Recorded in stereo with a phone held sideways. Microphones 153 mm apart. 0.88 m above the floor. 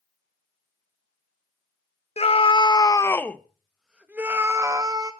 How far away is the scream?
About 1.2 m.